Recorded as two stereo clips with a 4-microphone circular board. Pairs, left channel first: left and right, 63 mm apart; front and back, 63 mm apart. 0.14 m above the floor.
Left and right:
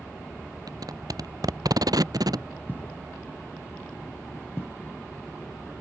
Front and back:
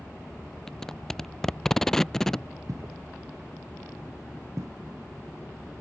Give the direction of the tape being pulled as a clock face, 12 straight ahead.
3 o'clock.